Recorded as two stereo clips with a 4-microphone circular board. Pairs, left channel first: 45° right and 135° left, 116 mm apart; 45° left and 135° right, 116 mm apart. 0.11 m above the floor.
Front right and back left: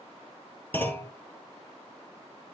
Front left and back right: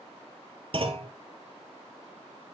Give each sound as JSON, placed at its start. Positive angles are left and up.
{"t": 0.7, "sound": "a clunk", "azimuth_deg": -115, "distance_m": 1.4}